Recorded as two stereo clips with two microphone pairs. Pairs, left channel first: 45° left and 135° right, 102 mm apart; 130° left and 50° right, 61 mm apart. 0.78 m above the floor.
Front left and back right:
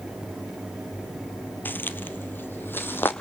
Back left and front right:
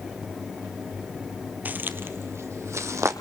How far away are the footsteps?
About 0.8 m.